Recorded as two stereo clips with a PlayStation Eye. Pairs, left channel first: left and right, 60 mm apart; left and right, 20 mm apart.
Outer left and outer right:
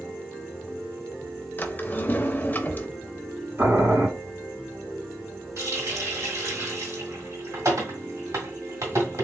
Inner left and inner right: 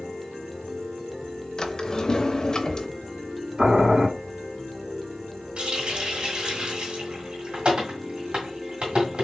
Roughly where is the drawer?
Left.